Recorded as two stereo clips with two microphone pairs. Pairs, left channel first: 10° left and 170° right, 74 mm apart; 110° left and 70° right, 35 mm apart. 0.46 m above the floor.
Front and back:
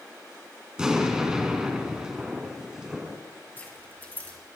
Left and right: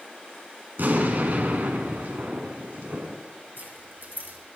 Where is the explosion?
90° right, 2.5 m.